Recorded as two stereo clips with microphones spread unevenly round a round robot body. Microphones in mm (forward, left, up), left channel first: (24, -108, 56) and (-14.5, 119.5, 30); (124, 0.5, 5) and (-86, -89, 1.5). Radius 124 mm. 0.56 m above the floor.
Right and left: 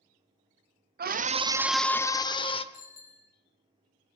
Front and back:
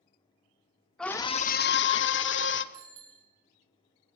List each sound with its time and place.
1.0 s a scream: 110° left, 1.0 m; by 2.6 s 10° right, 1.9 m
2.7 s a bicycle bell: 135° right, 5 m